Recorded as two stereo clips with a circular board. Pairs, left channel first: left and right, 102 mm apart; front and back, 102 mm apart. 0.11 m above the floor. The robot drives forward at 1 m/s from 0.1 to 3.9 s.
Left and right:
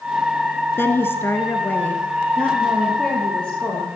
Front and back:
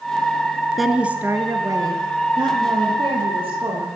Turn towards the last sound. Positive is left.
turn(degrees=170)